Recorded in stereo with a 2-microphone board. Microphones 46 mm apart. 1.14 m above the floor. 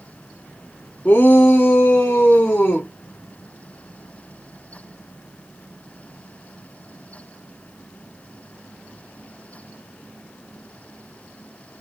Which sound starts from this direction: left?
A shout, at 1.1 s.